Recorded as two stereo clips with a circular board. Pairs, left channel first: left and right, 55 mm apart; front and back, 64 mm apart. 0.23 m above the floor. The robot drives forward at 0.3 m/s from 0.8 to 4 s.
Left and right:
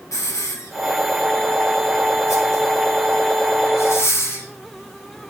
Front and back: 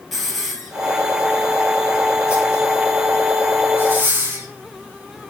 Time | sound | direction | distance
0.1 | a hiss | 90° left | 1.5 m